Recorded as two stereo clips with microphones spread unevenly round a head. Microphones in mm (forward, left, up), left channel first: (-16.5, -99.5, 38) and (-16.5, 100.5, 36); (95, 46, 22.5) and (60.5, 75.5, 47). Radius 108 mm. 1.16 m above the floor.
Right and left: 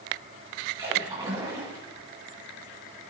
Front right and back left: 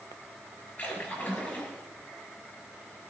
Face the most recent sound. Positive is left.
turn(degrees=15)